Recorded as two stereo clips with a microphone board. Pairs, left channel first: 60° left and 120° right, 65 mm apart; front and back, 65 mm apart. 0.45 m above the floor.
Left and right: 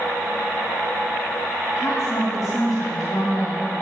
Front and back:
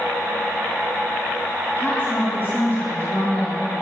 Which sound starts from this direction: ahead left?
A woman speaking, at 1.8 s.